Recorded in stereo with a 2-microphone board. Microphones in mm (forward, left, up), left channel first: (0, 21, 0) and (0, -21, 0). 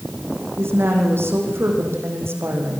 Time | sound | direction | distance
0.6 | a woman speaking | 80° right | 8 m